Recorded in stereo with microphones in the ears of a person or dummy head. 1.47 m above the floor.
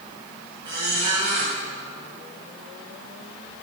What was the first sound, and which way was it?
A squeak, 25° right (ahead or behind).